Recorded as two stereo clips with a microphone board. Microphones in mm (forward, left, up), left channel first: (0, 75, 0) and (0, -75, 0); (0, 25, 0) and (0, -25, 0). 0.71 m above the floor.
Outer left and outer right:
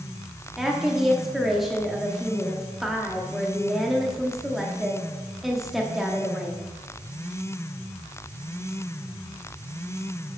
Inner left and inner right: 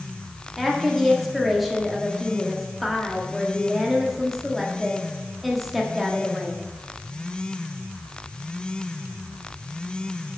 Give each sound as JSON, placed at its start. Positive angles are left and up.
{"t": 0.6, "sound": "a woman speaking", "side_deg": 0, "distance_m": 1.0}